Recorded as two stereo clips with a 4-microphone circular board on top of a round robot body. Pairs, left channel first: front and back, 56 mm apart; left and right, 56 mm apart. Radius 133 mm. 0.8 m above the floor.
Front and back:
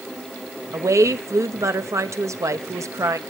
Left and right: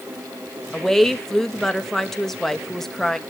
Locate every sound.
0.7 s a woman speaking: 170° left, 1.4 m